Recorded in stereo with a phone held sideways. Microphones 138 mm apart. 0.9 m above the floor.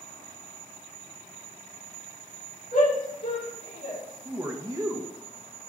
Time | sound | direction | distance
2.7 | a shout | 70° left (ahead or behind) | 3 m
4.2 | a man speaking | 25° right (ahead or behind) | 0.9 m